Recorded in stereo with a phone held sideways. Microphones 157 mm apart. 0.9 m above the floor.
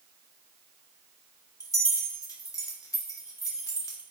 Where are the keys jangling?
20° left (ahead or behind), 1.0 m.